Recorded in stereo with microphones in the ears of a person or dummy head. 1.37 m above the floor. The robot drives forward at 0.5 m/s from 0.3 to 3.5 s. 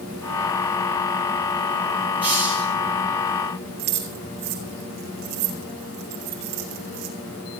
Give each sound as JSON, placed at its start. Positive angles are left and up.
{"t": 2.2, "sound": "a hiss", "side_deg": -5, "distance_m": 7.5}
{"t": 3.8, "sound": "keys jangling", "side_deg": -45, "distance_m": 2.5}